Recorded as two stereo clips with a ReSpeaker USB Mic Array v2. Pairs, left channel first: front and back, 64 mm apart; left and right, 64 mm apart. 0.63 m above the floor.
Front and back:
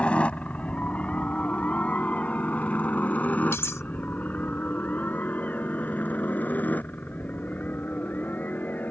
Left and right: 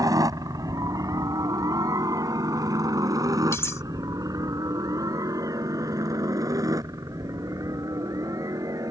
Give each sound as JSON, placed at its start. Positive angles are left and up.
{"t": 0.0, "sound": "a helicopter", "azimuth_deg": -70}
{"t": 3.5, "sound": "cutlery clinking", "azimuth_deg": 45}